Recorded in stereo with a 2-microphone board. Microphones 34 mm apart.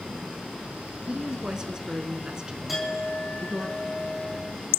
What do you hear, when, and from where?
1.1 s a woman speaking: 25° right (ahead or behind), 1.2 m
2.7 s a clink: 10° right (ahead or behind), 5.5 m